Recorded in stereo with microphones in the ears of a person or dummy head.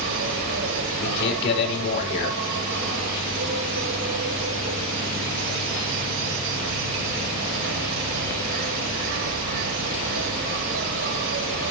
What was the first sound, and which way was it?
An insect, 70° right (ahead or behind).